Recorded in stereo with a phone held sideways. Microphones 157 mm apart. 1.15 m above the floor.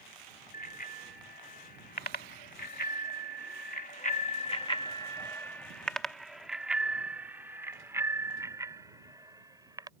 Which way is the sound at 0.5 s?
70° left (ahead or behind).